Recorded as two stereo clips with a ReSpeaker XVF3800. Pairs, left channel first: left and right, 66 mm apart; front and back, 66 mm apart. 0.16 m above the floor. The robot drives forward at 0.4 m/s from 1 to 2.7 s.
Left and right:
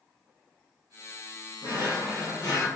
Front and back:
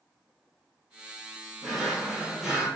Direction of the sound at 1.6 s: 85° left.